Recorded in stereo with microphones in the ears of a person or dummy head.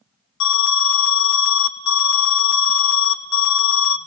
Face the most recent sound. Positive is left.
turn(degrees=60)  # may be behind; listen again after turning